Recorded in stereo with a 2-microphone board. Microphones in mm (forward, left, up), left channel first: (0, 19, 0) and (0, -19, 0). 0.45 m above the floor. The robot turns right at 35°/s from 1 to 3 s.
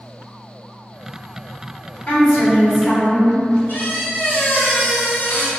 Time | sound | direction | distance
2.1 | a woman speaking | 100° left | 1.1 m
3.7 | a squeak | 55° left (ahead or behind) | 0.5 m